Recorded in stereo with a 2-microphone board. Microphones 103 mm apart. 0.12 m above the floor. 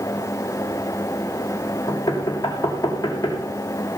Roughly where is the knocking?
Left.